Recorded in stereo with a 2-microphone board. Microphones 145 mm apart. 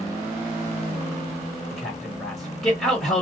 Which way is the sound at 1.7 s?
Centre (ahead or behind).